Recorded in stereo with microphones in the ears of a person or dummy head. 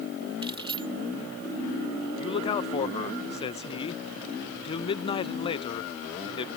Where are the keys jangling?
25° right (ahead or behind).